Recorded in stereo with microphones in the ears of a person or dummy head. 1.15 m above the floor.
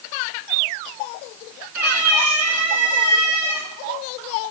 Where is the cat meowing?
5° right (ahead or behind), 3 m.